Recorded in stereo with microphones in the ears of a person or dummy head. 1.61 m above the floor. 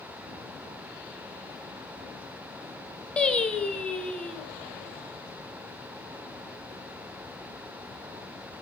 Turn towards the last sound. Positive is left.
turn(degrees=5)  # may be behind; listen again after turning